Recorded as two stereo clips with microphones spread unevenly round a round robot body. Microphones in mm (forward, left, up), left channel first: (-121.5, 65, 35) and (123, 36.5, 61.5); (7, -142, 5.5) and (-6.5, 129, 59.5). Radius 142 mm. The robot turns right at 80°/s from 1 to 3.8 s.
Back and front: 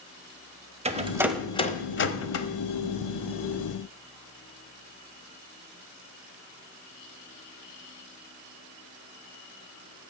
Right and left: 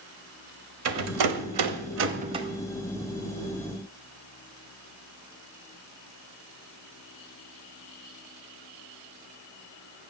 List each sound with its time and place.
0.8 s a rattle: 60° left, 1.2 m; by 2.5 s straight behind, 1.2 m